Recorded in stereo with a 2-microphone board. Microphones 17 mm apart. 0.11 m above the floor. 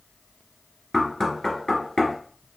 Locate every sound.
0.9 s knocking: 40° left (ahead or behind), 1.1 m